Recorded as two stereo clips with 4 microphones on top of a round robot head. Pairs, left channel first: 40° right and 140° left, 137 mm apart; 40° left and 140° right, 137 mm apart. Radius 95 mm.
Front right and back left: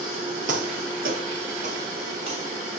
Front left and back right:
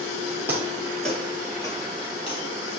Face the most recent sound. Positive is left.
turn(degrees=85)